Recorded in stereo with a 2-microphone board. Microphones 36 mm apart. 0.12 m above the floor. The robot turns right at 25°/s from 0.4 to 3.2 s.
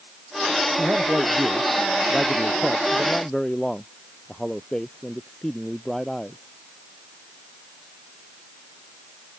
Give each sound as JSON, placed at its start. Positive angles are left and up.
{"t": 0.8, "sound": "a man speaking", "azimuth_deg": -50}